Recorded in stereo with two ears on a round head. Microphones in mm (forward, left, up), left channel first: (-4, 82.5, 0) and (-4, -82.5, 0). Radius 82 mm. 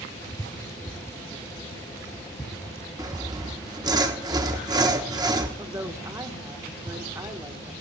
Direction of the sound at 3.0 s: 20° right (ahead or behind).